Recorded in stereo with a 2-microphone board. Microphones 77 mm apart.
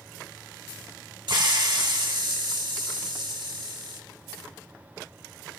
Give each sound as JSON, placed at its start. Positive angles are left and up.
{"t": 1.3, "sound": "a hiss", "side_deg": -75, "distance_m": 1.7}